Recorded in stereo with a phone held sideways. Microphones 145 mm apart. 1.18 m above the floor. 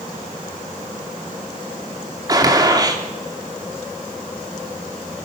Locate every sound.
2.3 s a gunshot: 25° right (ahead or behind), 3 m